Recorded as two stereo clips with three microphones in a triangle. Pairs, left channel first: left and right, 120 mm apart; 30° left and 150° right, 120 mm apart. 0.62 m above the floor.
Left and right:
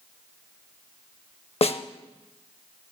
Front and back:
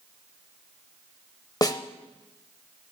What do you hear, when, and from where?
1.6 s a snare drum: 80° left, 0.5 m